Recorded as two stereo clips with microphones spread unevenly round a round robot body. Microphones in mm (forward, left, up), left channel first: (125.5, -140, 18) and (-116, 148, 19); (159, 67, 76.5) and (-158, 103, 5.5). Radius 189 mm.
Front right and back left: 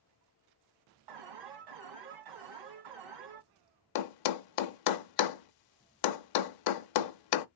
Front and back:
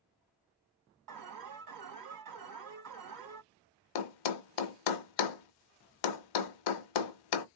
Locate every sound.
1.1 s an alarm: 155° left, 3 m
4.0 s a thud: 15° right, 0.6 m